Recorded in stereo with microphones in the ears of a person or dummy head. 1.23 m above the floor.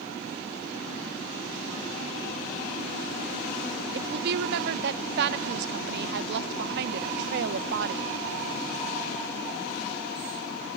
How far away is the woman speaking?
About 0.7 m.